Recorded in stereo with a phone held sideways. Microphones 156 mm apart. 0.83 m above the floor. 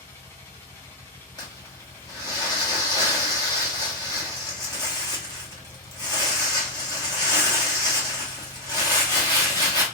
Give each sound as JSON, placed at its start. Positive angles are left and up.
{"t": 0.0, "sound": "a machine running", "side_deg": 15, "distance_m": 1.0}
{"t": 1.4, "sound": "crumpling", "side_deg": 25, "distance_m": 0.9}